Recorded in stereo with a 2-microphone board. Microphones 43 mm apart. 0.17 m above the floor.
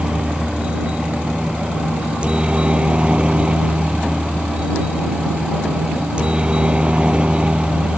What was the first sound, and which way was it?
A helicopter, 25° right (ahead or behind).